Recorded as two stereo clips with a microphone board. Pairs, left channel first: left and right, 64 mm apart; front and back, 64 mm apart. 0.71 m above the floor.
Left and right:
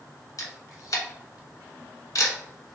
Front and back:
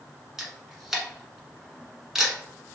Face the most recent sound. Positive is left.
turn(degrees=100)